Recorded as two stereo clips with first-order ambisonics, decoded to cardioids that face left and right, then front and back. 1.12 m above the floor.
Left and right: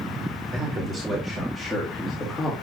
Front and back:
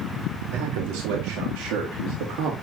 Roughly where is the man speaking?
Behind.